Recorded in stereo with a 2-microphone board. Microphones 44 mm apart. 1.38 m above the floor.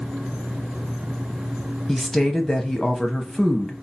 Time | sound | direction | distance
1.9 | a woman speaking | 5° left (ahead or behind) | 1.0 m